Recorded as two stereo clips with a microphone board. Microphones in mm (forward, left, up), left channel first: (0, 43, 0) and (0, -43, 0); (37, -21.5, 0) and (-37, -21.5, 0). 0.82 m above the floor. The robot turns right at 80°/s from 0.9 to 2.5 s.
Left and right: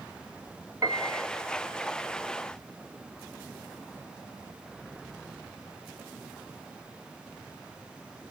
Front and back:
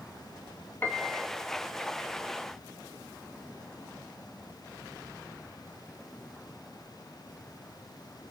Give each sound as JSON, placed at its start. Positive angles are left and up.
{"t": 0.8, "sound": "a piano", "azimuth_deg": -55, "distance_m": 1.0}